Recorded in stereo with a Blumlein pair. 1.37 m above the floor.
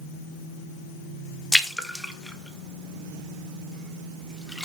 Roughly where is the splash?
Ahead.